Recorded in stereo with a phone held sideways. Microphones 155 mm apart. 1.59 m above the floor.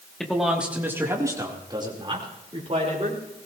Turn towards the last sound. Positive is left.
turn(degrees=-45)  # may be behind; listen again after turning